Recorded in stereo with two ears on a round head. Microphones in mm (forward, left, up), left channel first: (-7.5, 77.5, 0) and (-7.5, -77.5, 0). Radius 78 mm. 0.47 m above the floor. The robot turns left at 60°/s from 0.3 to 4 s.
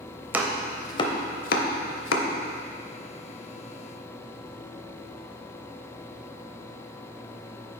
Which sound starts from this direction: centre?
Chopping, at 0.3 s.